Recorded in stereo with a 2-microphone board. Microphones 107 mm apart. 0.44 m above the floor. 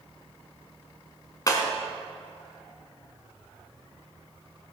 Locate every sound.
1.5 s breaking glass: 30° left (ahead or behind), 1.6 m